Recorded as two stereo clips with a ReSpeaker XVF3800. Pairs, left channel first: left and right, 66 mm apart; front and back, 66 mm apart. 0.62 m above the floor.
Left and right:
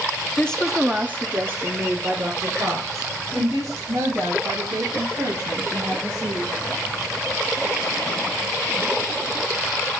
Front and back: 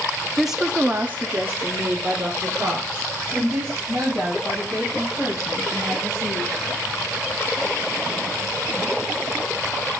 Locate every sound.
0.4 s a woman speaking: 95° left, 0.7 m; by 6.5 s 120° right, 6 m